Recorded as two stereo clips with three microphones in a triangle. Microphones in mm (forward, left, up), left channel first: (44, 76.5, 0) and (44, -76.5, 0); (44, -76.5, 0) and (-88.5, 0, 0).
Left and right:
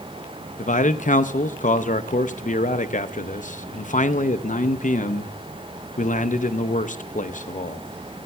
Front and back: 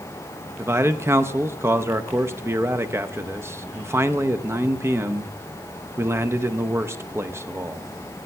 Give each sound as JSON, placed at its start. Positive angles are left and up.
{"t": 0.6, "sound": "a man speaking", "azimuth_deg": 80, "distance_m": 0.5}